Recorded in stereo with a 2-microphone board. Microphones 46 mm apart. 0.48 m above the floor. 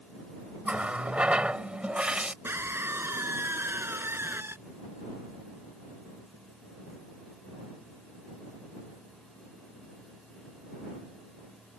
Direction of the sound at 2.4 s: 60° right (ahead or behind).